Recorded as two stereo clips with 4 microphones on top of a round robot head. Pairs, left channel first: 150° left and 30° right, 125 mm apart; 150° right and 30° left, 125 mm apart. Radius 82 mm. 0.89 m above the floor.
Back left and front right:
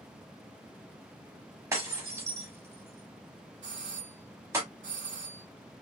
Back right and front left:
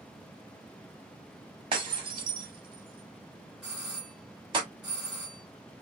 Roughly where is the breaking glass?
Ahead.